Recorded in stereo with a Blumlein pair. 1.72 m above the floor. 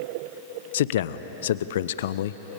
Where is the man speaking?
60° left, 0.8 m.